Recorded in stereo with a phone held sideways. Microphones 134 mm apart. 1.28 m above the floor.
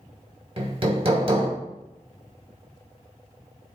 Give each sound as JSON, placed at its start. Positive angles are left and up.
{"t": 0.6, "sound": "hammering", "side_deg": -45, "distance_m": 1.2}